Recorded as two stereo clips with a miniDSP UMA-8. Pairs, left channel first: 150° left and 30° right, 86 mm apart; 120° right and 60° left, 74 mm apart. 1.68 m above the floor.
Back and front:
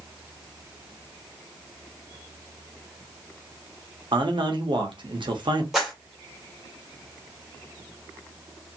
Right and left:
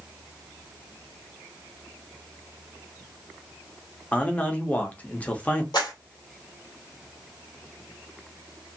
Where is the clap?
115° right, 1.7 m.